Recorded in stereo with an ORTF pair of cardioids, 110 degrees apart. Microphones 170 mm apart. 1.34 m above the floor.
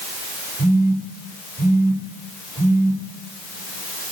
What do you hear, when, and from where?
0.6 s a phone buzzing: 15° right, 7 m